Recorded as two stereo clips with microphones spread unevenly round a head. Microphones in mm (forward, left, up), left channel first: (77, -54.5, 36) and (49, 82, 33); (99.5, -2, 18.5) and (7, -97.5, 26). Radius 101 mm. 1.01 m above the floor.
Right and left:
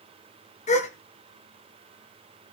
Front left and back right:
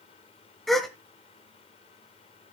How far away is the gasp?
About 1.9 m.